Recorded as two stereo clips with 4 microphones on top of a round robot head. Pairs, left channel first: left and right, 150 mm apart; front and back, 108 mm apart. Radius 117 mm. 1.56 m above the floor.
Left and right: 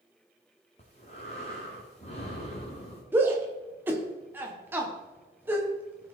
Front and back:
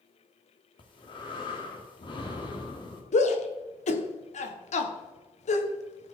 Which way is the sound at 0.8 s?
30° left.